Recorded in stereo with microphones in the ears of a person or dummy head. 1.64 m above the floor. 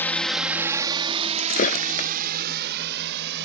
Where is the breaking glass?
45° left (ahead or behind).